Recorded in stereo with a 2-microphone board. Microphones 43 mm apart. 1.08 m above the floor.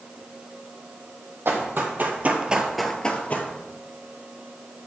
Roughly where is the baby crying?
No baby crying in this recording.